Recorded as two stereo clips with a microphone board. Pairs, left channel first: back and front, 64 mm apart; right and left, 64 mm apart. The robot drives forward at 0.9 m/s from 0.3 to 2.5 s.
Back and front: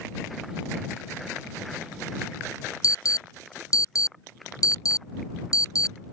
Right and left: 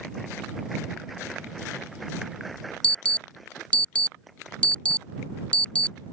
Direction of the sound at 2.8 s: 160° right.